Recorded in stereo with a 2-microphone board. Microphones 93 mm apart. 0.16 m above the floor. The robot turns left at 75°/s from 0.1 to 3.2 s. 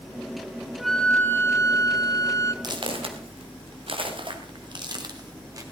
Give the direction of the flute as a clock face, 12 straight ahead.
6 o'clock.